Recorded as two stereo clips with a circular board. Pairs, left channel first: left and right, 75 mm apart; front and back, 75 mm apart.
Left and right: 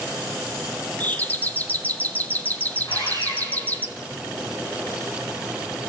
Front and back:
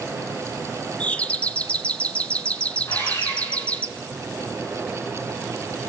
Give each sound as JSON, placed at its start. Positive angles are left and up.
{"t": 1.0, "sound": "a doorbell", "azimuth_deg": 55, "distance_m": 0.8}
{"t": 2.9, "sound": "sawing", "azimuth_deg": 55, "distance_m": 9.5}